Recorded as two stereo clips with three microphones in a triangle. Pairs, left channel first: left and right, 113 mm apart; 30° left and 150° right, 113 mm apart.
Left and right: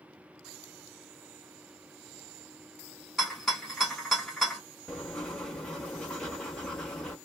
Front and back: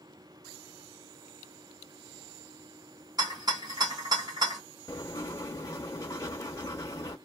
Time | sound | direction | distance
3.2 | a rattle | 175° left | 1.9 m
4.9 | writing | 15° left | 0.8 m